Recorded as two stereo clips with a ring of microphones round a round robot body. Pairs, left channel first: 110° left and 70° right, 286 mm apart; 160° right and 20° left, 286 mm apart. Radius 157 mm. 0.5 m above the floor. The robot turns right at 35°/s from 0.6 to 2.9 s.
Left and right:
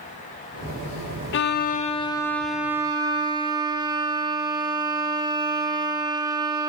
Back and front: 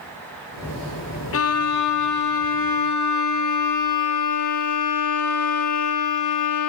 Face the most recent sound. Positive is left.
turn(degrees=-145)